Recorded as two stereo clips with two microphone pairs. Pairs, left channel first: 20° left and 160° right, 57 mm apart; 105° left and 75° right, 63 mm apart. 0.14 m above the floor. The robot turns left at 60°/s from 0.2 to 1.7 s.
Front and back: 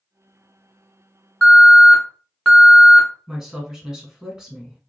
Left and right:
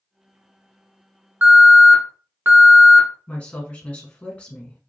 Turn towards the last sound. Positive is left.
turn(degrees=135)